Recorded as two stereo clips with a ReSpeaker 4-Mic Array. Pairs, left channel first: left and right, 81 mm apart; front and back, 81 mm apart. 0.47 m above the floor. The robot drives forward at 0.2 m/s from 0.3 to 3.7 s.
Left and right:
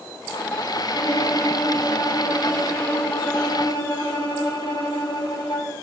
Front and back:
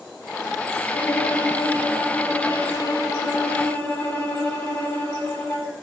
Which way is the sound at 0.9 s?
50° left.